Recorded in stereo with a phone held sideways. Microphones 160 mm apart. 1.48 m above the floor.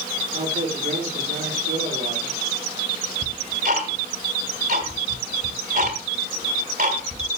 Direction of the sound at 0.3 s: 80° right.